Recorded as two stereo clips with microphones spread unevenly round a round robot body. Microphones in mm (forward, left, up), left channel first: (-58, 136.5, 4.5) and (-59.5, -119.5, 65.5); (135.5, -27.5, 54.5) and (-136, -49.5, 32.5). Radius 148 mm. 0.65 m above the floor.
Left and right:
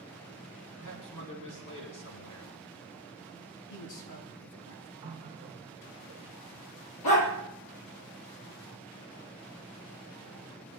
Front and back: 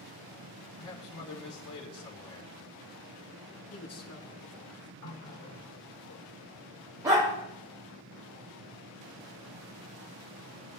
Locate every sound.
0.8 s a man speaking: 45° left, 5 m
3.7 s a man speaking: 65° left, 7 m
5.0 s a running tap: 25° right, 1.9 m
7.0 s a dog barking: 105° left, 4.5 m